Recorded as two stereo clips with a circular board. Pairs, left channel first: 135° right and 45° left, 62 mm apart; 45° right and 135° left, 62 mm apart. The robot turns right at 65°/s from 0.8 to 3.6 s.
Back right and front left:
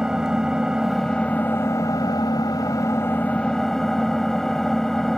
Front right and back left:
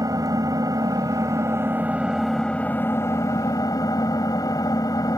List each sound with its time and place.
0.0 s an engine running: 125° left; by 5.2 s 50° right